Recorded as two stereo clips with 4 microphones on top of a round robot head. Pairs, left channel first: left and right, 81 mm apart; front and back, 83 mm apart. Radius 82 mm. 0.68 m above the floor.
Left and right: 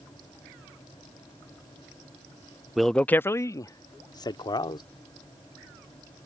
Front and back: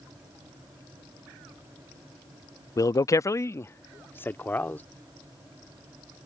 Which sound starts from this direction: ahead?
A man speaking, at 2.8 s.